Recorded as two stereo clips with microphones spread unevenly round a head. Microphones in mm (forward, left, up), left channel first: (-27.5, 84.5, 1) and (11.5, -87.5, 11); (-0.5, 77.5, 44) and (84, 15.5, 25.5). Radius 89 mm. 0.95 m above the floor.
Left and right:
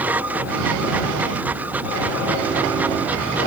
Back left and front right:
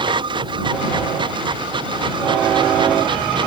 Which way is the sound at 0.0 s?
5° left.